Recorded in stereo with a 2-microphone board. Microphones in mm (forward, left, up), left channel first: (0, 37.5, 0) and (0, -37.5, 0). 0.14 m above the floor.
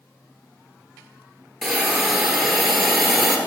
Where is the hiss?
Centre (ahead or behind), 1.1 m.